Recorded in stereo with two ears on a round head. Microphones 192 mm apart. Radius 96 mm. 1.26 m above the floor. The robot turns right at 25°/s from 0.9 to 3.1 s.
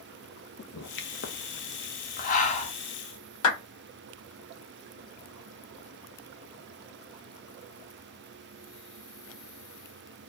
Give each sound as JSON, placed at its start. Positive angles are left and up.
{"t": 0.6, "sound": "a pop", "side_deg": 55, "distance_m": 0.6}
{"t": 3.4, "sound": "a clap", "side_deg": 75, "distance_m": 1.4}